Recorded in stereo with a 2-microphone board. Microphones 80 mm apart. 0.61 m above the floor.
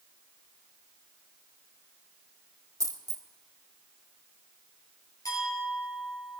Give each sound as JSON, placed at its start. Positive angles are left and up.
{"t": 2.8, "sound": "a dropped coin", "side_deg": -50, "distance_m": 1.4}
{"t": 5.2, "sound": "a clink", "side_deg": 50, "distance_m": 9.5}